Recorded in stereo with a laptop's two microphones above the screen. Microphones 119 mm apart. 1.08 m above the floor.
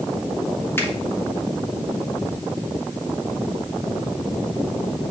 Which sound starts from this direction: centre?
A finger snap, at 0.8 s.